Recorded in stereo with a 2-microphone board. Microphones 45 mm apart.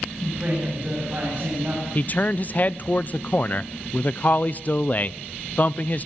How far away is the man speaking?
About 0.6 m.